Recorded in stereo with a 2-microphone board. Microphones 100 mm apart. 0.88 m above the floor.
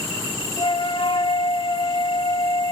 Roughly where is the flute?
Left.